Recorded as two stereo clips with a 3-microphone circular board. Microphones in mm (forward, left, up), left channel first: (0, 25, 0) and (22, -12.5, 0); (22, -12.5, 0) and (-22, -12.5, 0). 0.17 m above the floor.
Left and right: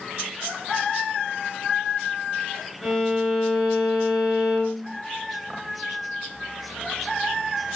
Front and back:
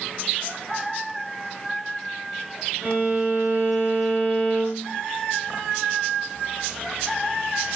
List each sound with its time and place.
2.8 s a violin: 160° right, 1.9 m